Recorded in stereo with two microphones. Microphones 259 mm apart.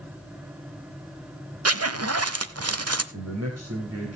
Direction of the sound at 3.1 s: 70° right (ahead or behind).